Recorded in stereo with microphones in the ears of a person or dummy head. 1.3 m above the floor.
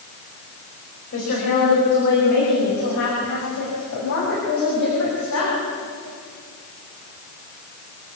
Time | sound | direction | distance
1.1 | a woman speaking | 50° left (ahead or behind) | 5 m